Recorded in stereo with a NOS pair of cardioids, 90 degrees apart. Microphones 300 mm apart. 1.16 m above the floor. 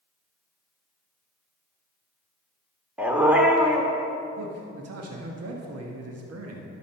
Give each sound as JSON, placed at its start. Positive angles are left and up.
{"t": 3.0, "sound": "a dog barking", "azimuth_deg": -5, "distance_m": 1.5}
{"t": 4.4, "sound": "a man speaking", "azimuth_deg": -55, "distance_m": 1.5}